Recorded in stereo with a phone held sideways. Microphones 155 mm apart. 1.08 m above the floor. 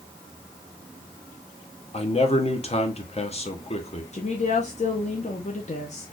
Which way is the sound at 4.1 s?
45° left (ahead or behind).